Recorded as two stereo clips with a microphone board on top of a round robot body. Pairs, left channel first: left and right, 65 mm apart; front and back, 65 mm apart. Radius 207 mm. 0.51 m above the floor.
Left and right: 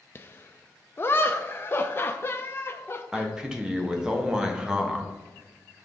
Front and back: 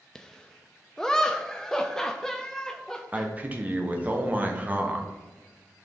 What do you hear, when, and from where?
0.1 s laughter: 75° left, 0.7 m
3.1 s a man speaking: 155° right, 1.3 m